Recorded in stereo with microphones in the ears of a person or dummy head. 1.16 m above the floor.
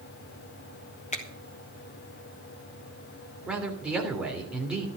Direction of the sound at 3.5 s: 10° right (ahead or behind).